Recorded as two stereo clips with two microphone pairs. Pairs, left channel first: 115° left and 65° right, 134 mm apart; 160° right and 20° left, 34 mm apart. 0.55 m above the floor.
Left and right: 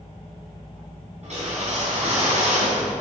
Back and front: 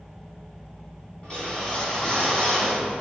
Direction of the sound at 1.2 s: 95° right.